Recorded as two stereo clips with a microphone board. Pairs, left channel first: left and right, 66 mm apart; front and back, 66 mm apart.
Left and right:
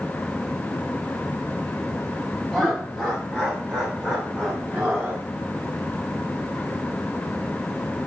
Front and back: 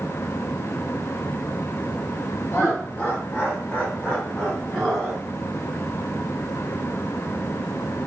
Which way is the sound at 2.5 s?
5° right.